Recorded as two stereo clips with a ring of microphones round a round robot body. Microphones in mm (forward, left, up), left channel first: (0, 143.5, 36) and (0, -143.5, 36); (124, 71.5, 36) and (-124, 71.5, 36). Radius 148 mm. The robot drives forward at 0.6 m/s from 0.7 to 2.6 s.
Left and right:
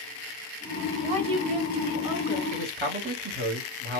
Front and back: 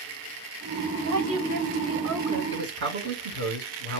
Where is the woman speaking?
155° right, 3 m; by 2.4 s 160° right, 4 m.